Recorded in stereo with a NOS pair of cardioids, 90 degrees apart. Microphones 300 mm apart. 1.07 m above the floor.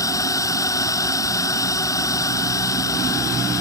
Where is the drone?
10° left.